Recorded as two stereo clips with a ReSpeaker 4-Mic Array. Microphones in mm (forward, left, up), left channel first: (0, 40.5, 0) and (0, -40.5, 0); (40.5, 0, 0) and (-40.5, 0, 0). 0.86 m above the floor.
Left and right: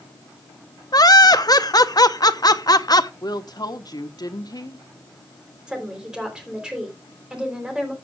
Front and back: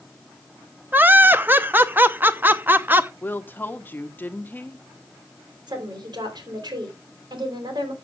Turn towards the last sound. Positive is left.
turn(degrees=-170)